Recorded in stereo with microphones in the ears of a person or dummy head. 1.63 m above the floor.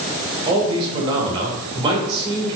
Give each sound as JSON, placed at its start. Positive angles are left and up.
{"t": 0.5, "sound": "a man speaking", "side_deg": -30, "distance_m": 1.4}